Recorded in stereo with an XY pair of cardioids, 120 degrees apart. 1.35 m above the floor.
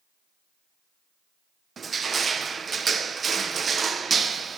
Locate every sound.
1.8 s crushing: 35° right, 0.5 m